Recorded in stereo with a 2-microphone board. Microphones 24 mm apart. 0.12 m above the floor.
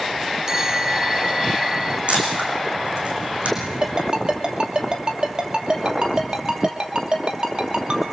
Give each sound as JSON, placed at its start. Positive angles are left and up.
{"t": 0.5, "sound": "a bell", "side_deg": -25, "distance_m": 0.6}
{"t": 2.1, "sound": "a camera shutter", "side_deg": -60, "distance_m": 5.5}
{"t": 3.8, "sound": "a ringtone", "side_deg": -40, "distance_m": 2.5}